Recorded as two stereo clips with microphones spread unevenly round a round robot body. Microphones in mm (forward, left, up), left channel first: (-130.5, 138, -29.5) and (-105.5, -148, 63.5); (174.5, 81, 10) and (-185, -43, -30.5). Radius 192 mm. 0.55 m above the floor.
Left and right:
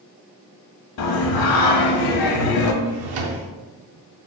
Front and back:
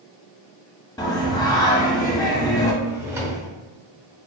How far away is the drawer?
About 0.5 m.